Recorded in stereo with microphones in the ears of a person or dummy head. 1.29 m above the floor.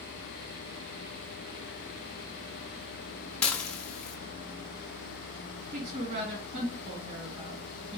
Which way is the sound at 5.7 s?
40° right (ahead or behind).